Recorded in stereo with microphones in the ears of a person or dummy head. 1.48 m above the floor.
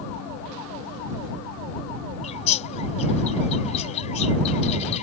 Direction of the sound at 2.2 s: 40° left (ahead or behind).